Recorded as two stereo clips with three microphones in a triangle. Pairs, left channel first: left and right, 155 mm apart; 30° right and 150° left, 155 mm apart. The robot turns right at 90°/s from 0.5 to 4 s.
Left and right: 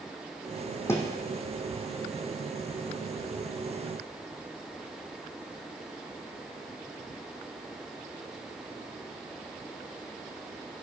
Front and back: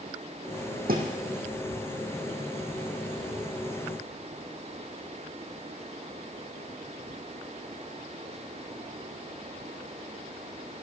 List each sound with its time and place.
0.9 s a thud: 160° left, 2.0 m; by 1.1 s straight behind, 2.0 m